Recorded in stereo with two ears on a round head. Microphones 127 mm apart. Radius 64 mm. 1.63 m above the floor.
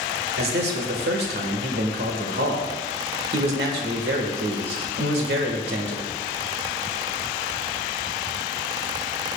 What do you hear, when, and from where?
0.4 s a man speaking: 80° right, 1.6 m